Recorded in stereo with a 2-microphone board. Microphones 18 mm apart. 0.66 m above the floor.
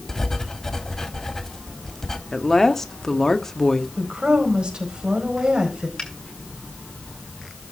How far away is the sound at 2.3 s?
About 1.4 m.